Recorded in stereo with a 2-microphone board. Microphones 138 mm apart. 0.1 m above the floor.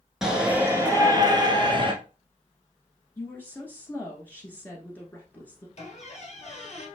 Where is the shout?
5° right (ahead or behind), 1.3 m; by 1.9 s 35° right (ahead or behind), 1.6 m.